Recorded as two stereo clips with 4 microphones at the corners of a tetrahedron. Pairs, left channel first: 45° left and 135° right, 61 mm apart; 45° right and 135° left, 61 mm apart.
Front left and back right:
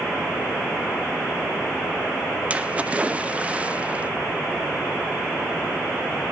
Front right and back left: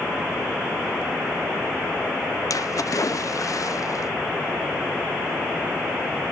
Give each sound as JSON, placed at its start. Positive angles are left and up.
{"t": 2.5, "sound": "a splash", "azimuth_deg": -65, "distance_m": 0.7}